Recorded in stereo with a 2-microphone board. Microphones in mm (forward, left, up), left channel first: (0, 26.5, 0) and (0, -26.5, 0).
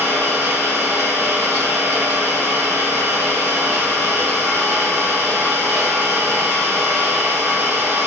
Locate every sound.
0.0 s an engine running: 55° right (ahead or behind), 1.1 m